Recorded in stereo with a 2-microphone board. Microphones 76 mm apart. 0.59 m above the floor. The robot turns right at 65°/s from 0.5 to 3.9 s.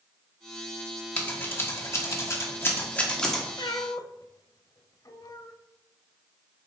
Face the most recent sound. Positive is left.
turn(degrees=55)  # may be behind; listen again after turning